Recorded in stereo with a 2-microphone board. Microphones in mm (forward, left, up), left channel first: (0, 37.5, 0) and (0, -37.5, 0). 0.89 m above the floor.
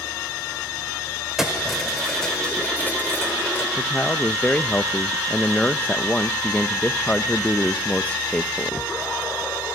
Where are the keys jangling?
5° right (ahead or behind), 3 m; by 3.7 s 40° left (ahead or behind), 2.5 m.